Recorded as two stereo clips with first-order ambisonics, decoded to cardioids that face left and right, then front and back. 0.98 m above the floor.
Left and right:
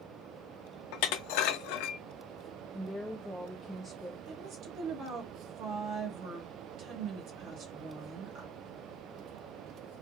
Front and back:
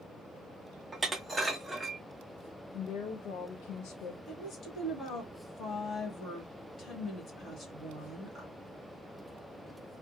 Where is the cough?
No cough in this recording.